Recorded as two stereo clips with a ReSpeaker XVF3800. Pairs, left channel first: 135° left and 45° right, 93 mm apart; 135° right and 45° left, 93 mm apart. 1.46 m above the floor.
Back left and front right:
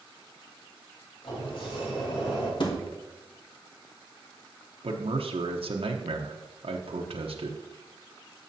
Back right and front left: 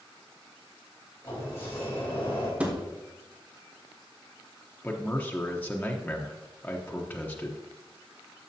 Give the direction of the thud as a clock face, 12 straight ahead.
8 o'clock.